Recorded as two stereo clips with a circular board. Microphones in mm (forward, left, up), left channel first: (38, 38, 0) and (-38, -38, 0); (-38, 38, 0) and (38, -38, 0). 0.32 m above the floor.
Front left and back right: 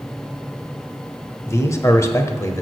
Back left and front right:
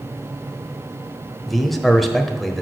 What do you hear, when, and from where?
1.5 s a man speaking: 50° left, 1.0 m